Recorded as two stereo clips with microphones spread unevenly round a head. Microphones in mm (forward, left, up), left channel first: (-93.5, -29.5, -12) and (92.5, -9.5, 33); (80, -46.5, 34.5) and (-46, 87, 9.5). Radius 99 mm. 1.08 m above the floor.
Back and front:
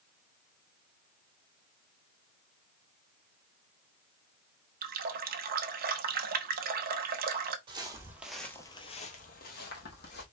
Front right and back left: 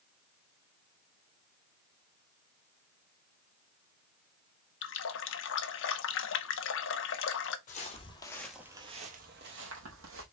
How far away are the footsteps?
About 1.5 m.